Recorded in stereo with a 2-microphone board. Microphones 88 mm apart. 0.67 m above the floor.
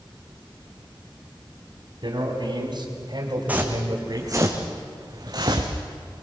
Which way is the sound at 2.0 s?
60° right (ahead or behind).